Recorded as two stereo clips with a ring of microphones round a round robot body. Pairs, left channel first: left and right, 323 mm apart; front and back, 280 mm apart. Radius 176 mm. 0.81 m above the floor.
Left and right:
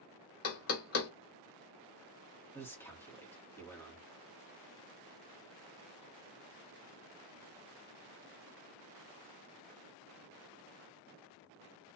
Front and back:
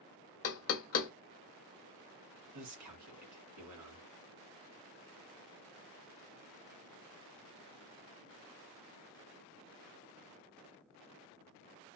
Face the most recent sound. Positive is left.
turn(degrees=175)